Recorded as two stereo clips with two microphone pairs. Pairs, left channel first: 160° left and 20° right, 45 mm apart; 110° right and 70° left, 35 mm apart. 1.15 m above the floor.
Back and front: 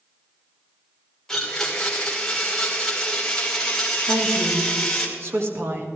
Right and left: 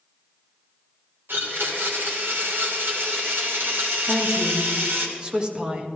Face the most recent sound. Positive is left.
turn(degrees=0)